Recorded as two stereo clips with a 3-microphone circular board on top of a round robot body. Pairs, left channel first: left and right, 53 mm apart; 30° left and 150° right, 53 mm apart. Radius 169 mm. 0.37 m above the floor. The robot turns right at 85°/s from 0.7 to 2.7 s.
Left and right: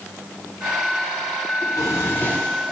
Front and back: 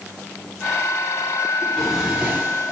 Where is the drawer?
95° left, 0.9 m; by 2.7 s 170° right, 0.9 m.